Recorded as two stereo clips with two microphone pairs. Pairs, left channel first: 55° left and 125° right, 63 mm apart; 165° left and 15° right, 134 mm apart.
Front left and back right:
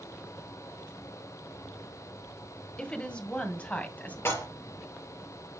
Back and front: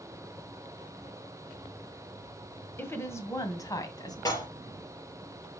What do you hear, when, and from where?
2.8 s a woman speaking: 110° left, 1.5 m; by 4.2 s 115° left, 2 m
4.2 s dishes clattering: 105° left, 3.5 m